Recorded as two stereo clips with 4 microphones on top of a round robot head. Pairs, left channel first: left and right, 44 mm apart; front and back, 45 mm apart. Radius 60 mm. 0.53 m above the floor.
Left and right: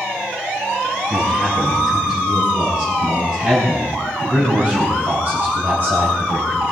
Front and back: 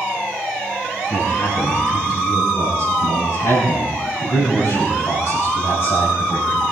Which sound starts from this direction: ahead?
A man speaking, at 1.1 s.